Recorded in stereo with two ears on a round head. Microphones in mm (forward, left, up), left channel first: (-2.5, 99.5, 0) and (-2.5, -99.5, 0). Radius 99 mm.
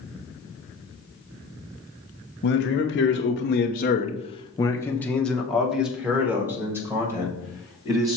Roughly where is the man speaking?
Left.